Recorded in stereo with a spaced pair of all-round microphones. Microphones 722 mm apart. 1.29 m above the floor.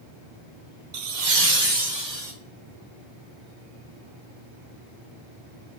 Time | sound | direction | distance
0.9 | laughter | 70° right (ahead or behind) | 0.6 m